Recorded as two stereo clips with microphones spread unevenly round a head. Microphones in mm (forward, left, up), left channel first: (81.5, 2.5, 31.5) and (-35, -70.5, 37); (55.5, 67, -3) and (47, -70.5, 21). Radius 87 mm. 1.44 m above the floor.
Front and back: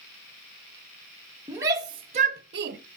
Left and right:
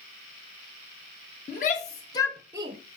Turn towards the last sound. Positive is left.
turn(degrees=-145)